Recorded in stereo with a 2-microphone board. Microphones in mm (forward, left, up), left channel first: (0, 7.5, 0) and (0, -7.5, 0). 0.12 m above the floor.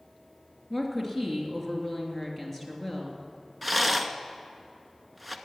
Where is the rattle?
Centre (ahead or behind), 0.8 m.